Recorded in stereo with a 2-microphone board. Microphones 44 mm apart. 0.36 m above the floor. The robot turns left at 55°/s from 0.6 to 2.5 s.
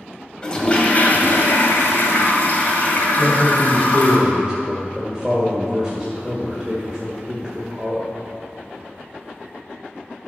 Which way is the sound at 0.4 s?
155° left.